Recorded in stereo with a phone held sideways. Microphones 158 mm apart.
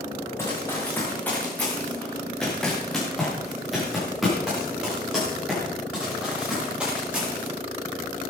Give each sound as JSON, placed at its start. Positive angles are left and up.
{"t": 0.4, "sound": "running footsteps", "side_deg": 15, "distance_m": 5.5}